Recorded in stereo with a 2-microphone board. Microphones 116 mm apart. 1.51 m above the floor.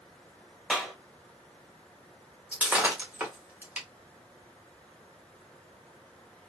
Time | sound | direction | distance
0.7 | a clap | 5° right (ahead or behind) | 1.3 m
2.5 | breaking glass | 15° right (ahead or behind) | 1.3 m